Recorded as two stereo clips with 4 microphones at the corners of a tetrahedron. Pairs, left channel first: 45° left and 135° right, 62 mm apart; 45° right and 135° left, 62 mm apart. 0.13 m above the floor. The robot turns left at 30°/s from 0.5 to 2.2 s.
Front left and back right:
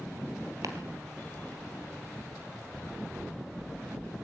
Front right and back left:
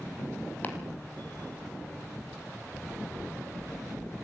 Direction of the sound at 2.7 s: 150° left.